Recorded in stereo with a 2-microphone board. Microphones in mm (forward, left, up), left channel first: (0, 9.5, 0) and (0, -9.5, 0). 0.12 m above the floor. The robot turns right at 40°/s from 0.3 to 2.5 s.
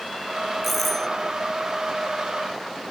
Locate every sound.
0.6 s a doorbell: 5° left (ahead or behind); by 1.1 s 20° left (ahead or behind)